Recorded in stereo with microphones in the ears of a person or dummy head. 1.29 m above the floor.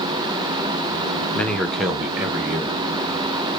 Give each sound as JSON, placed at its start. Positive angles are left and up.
{"t": 1.4, "sound": "a man speaking", "side_deg": 10, "distance_m": 0.9}